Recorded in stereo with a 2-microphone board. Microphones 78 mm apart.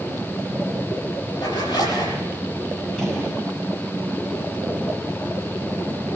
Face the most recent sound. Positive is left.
turn(degrees=5)  # may be behind; listen again after turning